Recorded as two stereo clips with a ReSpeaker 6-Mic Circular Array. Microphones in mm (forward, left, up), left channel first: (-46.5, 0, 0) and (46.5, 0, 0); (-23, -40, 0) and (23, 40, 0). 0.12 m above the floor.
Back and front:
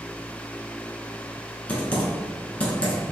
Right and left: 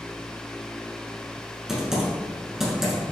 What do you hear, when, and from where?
1.7 s typing on a keyboard: 135° left, 1.0 m